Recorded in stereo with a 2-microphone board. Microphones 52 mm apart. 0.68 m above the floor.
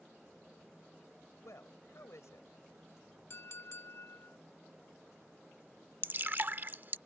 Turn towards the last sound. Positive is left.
turn(degrees=-40)  # may be behind; listen again after turning